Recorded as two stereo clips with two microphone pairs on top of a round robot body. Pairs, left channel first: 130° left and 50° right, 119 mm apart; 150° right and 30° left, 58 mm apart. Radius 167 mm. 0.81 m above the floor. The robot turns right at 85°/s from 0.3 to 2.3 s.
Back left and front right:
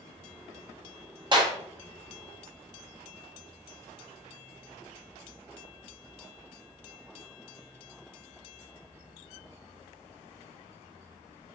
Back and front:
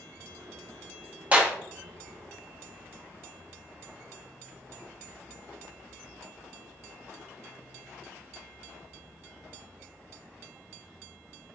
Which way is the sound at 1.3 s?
15° right.